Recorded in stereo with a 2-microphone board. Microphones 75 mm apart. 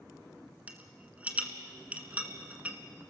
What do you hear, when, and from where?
0.7 s a rattle: 20° right (ahead or behind), 1.6 m